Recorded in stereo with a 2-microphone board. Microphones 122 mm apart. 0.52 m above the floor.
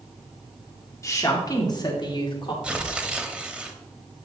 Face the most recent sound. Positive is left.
turn(degrees=-10)  # may be behind; listen again after turning